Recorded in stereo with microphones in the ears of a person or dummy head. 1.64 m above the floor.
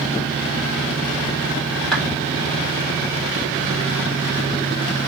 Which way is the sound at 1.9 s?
5° left (ahead or behind).